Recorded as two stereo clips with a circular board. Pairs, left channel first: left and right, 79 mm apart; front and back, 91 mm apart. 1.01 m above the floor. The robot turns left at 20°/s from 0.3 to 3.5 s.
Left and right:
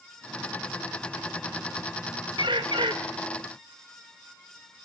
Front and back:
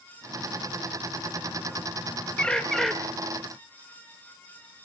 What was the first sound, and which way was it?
A bird, 80° right.